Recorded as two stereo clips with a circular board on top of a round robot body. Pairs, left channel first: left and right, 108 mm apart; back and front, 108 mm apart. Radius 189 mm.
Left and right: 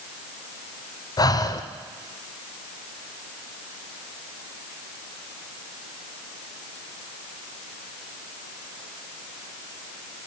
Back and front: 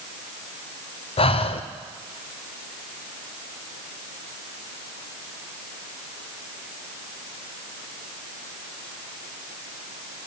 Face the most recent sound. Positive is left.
turn(degrees=145)